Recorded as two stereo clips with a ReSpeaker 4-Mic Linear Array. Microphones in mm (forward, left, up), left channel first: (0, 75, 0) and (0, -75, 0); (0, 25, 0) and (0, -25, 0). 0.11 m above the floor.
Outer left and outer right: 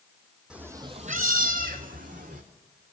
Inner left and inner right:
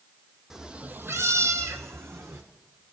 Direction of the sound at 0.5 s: 5° right (ahead or behind).